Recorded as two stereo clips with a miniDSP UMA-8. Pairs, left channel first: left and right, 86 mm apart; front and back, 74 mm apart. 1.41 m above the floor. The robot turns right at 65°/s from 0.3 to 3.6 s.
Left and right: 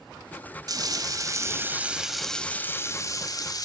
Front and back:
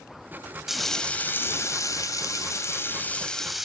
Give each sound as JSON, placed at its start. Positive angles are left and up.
{"t": 0.7, "sound": "frying", "azimuth_deg": -95, "distance_m": 1.7}